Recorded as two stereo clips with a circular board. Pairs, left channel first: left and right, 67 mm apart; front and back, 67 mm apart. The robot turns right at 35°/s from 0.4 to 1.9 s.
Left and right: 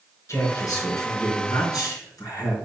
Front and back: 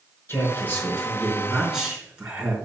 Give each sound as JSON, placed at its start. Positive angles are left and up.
{"t": 0.3, "sound": "a man speaking", "azimuth_deg": 50, "distance_m": 4.5}